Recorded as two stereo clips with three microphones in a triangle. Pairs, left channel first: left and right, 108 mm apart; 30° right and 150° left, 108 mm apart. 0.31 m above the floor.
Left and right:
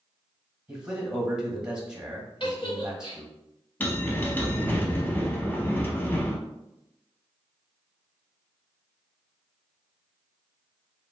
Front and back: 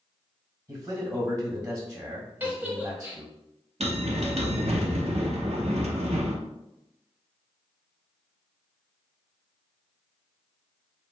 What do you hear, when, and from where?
0.7 s a man speaking: 170° right, 1.2 m
2.4 s a giggle: 85° left, 0.8 m
3.8 s a bell: 160° left, 0.5 m